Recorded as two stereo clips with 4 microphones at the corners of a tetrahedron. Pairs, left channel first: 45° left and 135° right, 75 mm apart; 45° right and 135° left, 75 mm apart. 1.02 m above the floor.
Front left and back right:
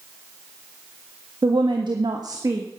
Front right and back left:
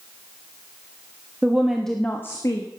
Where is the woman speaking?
155° right, 1.5 m; by 2.7 s 80° right, 1.4 m.